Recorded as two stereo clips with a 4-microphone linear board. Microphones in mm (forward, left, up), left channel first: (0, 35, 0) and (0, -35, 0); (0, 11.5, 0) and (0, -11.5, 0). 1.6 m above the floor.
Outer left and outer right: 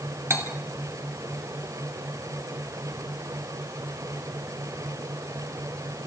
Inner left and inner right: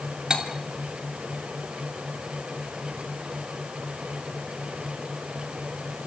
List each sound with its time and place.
0.3 s cutlery clinking: 40° right (ahead or behind), 2.5 m